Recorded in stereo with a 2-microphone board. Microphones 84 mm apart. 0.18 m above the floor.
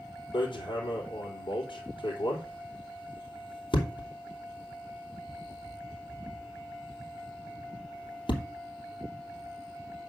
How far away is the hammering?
About 3 m.